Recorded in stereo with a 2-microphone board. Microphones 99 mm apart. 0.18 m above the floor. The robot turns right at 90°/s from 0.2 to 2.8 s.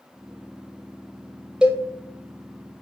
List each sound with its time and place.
1.6 s a cowbell: 10° right (ahead or behind), 0.9 m; by 1.8 s 30° right (ahead or behind), 0.9 m